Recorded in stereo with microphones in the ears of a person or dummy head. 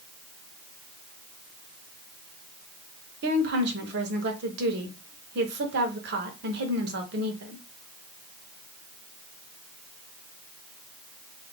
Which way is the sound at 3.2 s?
60° right (ahead or behind).